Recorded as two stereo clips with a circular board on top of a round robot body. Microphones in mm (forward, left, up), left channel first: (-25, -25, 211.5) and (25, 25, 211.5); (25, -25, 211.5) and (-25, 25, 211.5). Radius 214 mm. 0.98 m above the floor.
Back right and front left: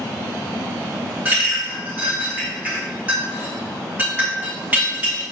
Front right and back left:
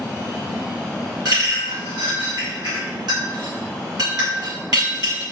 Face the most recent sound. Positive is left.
turn(degrees=115)